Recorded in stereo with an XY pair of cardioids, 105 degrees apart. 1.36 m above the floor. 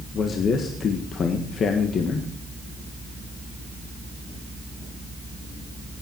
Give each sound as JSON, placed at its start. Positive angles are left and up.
{"t": 0.1, "sound": "a man speaking", "azimuth_deg": 50, "distance_m": 1.6}